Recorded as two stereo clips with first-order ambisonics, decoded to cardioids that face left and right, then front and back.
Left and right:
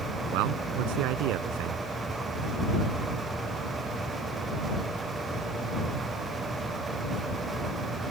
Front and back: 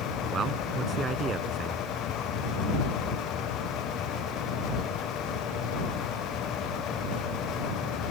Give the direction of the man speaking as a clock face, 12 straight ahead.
4 o'clock.